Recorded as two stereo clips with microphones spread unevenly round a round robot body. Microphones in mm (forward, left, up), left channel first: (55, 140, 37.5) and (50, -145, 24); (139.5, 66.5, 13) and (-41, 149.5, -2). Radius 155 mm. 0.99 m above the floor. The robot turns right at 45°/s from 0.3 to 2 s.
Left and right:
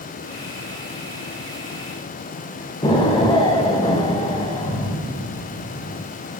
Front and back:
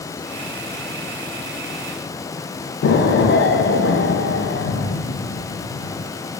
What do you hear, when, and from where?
2.8 s an explosion: 15° left, 0.6 m